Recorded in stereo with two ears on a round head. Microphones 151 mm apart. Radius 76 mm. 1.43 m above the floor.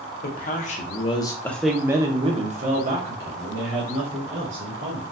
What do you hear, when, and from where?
0.2 s a man speaking: 50° left (ahead or behind), 1.0 m; by 5.0 s 75° right (ahead or behind), 1.8 m